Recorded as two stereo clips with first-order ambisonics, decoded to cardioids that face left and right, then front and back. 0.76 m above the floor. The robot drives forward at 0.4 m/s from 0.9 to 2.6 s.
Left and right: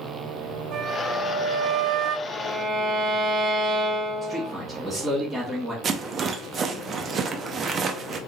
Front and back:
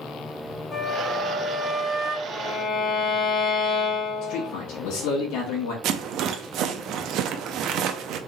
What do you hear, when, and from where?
0.7 s a flute: 60° right, 0.8 m; by 2.2 s 105° right, 0.8 m
2.3 s a violin: 35° right, 1.1 m; by 4.5 s 40° right, 1.0 m
4.2 s a man speaking: 5° right, 1.6 m
5.8 s a rattle: 145° right, 0.5 m